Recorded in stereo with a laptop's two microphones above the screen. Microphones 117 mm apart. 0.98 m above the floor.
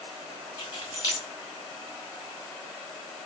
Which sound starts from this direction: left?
Keys jangling, at 0.6 s.